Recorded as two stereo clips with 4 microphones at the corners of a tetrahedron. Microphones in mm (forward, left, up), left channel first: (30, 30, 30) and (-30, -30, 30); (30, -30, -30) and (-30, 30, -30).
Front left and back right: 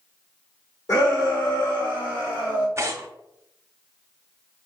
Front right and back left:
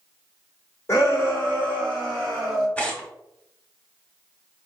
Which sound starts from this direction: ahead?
A shout, at 0.9 s.